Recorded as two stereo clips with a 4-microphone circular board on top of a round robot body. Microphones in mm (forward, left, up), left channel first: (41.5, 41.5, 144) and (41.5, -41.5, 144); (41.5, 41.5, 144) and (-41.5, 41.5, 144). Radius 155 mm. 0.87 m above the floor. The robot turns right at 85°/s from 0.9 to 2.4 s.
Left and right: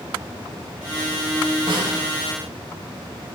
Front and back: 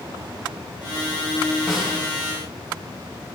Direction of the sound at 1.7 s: 100° right.